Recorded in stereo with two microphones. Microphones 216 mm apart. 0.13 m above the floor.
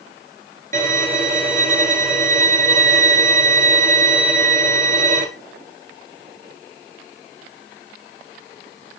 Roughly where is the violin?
Right.